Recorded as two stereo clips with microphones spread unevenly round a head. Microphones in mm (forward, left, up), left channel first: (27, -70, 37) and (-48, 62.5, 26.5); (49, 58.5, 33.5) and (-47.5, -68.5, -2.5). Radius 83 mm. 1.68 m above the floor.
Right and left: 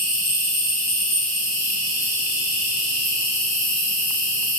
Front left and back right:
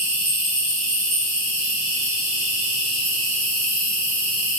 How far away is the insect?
About 1.7 m.